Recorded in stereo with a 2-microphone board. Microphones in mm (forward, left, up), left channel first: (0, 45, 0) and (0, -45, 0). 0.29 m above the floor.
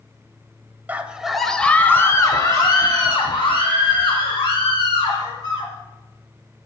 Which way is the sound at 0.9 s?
20° right (ahead or behind).